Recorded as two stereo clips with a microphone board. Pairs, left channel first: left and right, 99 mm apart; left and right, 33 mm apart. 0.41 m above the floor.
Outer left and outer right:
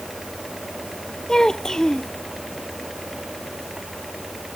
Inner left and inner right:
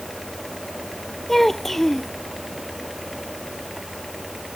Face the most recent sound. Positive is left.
turn(degrees=5)  # may be behind; listen again after turning